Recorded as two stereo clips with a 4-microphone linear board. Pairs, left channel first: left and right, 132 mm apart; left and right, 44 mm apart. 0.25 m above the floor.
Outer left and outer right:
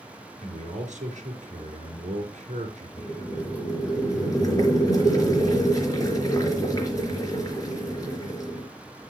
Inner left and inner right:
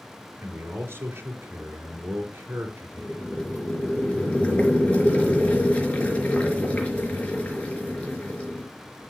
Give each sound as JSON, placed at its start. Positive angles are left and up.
{"t": 0.4, "sound": "a man speaking", "side_deg": -65, "distance_m": 4.0}
{"t": 3.0, "sound": "boiling", "side_deg": 25, "distance_m": 4.0}